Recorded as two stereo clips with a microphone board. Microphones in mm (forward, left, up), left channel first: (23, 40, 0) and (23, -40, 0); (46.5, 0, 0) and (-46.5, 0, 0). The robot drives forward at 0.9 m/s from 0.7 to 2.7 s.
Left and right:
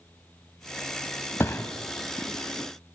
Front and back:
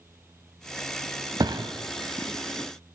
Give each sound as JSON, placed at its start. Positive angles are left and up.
{"t": 1.4, "sound": "a thud", "azimuth_deg": 145, "distance_m": 0.7}